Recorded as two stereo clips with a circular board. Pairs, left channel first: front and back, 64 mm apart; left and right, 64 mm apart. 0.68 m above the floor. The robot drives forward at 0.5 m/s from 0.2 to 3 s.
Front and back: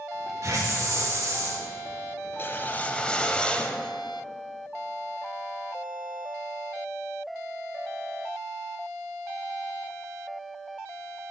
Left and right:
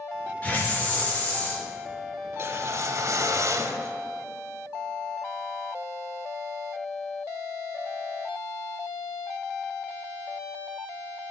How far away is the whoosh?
About 0.8 m.